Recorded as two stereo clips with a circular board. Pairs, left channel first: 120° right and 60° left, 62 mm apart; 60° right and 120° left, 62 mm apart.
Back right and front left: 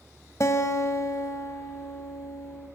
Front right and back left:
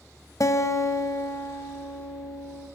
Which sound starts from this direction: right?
A guitar, at 0.4 s.